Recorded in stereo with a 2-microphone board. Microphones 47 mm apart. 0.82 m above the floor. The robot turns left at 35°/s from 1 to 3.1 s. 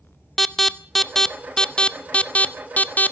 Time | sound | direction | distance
0.4 | an alarm | 5° left (ahead or behind) | 0.7 m